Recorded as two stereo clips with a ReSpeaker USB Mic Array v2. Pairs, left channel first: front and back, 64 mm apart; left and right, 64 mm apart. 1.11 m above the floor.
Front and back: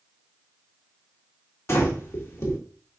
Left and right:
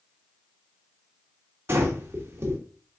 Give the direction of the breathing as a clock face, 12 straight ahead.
1 o'clock.